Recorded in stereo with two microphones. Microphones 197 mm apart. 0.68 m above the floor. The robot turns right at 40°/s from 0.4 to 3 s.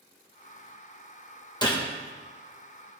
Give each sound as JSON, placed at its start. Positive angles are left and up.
{"t": 1.6, "sound": "a gunshot", "side_deg": 20, "distance_m": 1.0}